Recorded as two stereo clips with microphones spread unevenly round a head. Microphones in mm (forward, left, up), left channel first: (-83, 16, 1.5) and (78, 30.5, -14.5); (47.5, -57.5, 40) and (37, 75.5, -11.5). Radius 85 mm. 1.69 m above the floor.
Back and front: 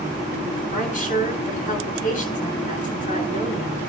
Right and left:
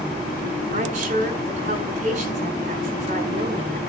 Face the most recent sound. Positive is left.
turn(degrees=145)